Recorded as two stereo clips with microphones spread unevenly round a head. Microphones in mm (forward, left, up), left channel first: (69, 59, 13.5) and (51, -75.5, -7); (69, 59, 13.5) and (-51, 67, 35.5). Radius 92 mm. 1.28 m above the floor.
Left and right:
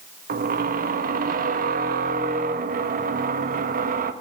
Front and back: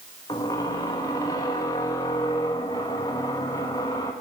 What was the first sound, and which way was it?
A squeak, 80° right.